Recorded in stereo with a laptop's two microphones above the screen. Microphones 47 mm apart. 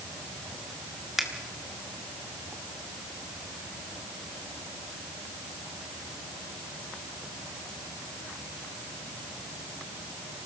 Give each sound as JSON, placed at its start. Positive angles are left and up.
{"t": 1.2, "sound": "a finger snap", "side_deg": -10, "distance_m": 1.9}